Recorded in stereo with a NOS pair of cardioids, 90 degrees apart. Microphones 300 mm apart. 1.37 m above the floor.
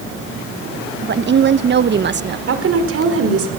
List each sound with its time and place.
1.0 s a woman speaking: 35° right, 1.1 m
2.5 s a woman speaking: 45° right, 4.5 m